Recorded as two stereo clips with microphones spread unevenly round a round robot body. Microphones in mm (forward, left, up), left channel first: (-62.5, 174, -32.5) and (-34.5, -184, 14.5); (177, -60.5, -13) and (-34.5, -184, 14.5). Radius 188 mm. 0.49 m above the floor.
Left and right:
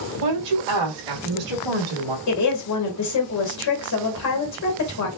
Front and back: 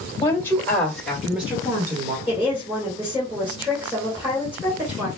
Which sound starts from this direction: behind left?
A woman speaking, at 2.3 s.